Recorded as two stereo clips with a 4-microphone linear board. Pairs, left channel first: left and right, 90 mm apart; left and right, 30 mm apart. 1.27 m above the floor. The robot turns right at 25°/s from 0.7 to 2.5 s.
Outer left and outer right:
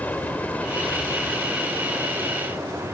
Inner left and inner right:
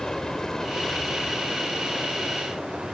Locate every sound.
0.0 s an aircraft: 15° left (ahead or behind); by 2.9 s 30° right (ahead or behind)